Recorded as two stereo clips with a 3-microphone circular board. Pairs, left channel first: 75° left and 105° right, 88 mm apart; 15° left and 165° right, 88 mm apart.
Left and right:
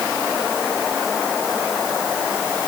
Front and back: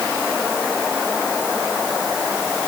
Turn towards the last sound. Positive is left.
No sound to turn to.